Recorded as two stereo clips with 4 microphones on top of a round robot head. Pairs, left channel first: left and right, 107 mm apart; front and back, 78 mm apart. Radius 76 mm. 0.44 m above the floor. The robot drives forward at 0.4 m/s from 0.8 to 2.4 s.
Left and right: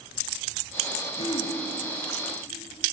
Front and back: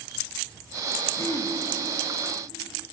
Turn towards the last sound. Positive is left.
turn(degrees=55)